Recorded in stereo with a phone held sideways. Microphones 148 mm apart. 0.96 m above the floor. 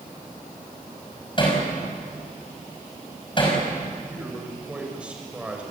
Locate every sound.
1.4 s hammering: 35° left (ahead or behind), 5.5 m
4.1 s a man speaking: 10° right (ahead or behind), 5.5 m